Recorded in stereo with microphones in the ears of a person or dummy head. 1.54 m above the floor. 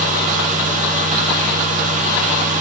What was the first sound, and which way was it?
A fan, 40° right (ahead or behind).